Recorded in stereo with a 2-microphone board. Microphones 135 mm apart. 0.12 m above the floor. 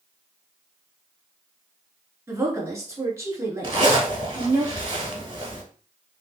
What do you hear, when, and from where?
2.3 s a woman speaking: 20° right (ahead or behind), 1.2 m
3.6 s a zipper: 35° right (ahead or behind), 1.1 m